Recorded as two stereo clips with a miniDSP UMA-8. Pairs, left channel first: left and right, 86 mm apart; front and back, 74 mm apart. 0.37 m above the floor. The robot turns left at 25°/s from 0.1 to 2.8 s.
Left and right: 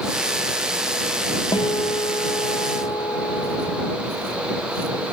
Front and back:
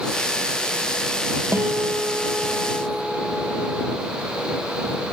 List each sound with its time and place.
1.5 s a guitar: 120° left; by 4.0 s 85° left